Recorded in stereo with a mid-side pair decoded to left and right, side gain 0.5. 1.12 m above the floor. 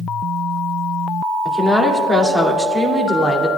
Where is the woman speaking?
10° right, 2.5 m.